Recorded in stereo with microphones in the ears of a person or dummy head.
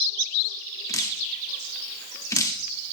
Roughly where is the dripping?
Centre.